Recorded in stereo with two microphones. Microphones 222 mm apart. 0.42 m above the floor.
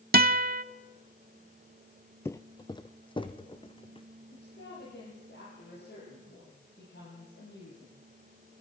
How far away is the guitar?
About 0.7 m.